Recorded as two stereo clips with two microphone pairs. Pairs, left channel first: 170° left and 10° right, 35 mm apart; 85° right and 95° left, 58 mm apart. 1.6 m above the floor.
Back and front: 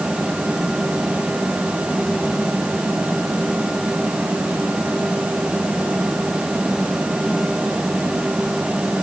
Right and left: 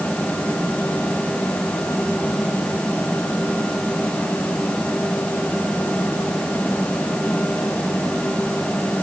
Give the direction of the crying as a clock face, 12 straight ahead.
No crying in this recording.